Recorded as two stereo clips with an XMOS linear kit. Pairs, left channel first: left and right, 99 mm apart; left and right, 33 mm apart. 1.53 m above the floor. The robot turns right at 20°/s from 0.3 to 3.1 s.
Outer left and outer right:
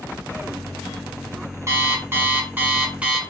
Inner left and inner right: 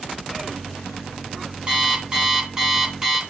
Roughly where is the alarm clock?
Right.